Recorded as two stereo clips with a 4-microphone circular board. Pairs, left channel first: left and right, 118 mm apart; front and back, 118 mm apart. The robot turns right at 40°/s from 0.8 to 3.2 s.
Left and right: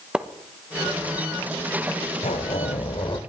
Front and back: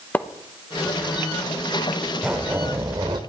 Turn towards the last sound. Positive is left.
turn(degrees=135)